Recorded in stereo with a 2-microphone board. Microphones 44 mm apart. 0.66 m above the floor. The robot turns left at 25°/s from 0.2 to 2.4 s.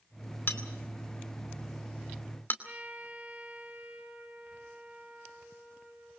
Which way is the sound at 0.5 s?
55° left (ahead or behind).